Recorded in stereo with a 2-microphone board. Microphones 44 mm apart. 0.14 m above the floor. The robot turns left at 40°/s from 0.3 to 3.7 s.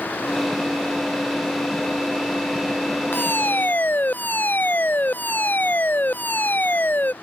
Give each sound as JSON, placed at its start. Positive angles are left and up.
{"t": 3.1, "sound": "a fire alarm", "side_deg": 55}